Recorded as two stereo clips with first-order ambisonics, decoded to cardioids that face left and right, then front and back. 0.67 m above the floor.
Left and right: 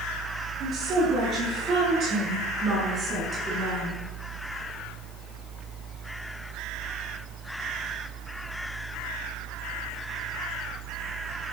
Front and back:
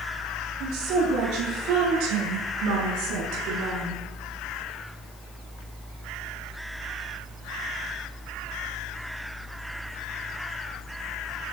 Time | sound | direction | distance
0.6 | a woman speaking | 145° right | 10 m